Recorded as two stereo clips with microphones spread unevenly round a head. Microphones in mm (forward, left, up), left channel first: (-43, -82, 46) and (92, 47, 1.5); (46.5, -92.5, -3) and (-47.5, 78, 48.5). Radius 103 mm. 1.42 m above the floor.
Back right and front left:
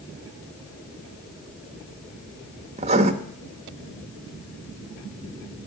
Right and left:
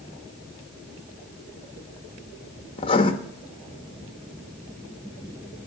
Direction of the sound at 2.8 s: 5° left.